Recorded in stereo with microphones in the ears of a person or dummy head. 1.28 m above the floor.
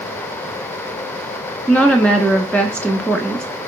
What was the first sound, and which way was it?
A woman speaking, 5° left (ahead or behind).